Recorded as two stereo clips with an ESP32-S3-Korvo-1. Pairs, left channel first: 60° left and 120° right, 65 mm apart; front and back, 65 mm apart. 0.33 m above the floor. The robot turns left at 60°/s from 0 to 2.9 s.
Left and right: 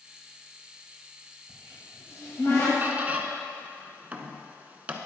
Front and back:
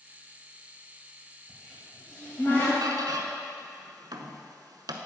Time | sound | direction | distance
1.5 | a cupboard door | 105° left | 2 m
2.8 | a squeak | straight behind | 0.6 m